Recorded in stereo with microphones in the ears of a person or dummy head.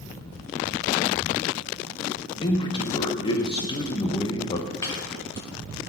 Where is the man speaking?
20° left (ahead or behind), 0.8 m.